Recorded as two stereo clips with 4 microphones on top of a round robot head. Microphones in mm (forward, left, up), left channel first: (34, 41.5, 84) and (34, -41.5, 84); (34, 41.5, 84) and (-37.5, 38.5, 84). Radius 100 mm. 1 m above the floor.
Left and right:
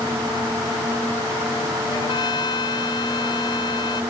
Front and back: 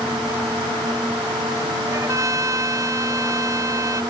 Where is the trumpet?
135° left.